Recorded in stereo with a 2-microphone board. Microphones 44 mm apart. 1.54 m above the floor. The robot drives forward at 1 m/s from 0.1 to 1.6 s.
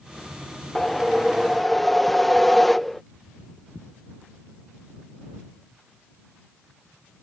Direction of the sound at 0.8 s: 10° left (ahead or behind).